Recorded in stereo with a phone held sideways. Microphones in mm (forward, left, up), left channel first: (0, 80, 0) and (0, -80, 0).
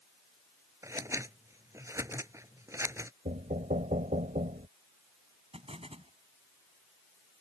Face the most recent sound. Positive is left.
turn(degrees=-40)  # may be behind; listen again after turning